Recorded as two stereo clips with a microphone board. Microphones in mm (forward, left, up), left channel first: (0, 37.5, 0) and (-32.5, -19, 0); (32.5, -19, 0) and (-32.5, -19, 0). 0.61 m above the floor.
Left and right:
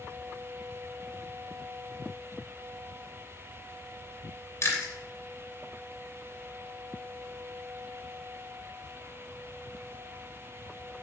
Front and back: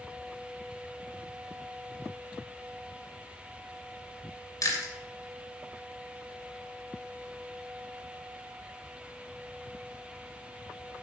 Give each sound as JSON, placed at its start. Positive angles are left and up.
{"t": 4.6, "sound": "chewing", "azimuth_deg": 20, "distance_m": 3.0}